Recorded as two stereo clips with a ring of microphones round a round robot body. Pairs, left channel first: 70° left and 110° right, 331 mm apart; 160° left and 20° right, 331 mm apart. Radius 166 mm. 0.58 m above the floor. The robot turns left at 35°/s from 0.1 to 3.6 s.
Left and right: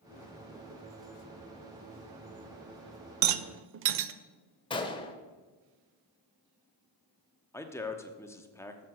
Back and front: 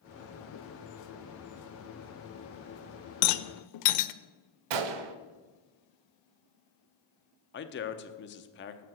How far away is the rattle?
About 0.5 m.